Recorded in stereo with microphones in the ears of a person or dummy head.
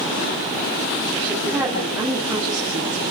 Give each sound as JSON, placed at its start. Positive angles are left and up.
{"t": 1.2, "sound": "a woman speaking", "side_deg": -10, "distance_m": 8.0}